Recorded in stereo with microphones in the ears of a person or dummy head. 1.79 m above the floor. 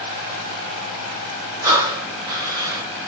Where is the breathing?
15° right (ahead or behind), 1.2 m.